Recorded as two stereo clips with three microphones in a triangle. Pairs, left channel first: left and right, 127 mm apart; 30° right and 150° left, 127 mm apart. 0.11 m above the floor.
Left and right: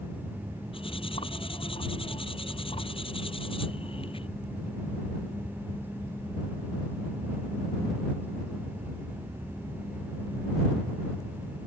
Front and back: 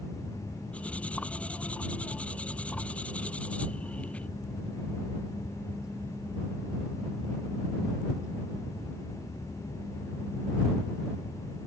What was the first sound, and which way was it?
Cutlery clinking, 50° left.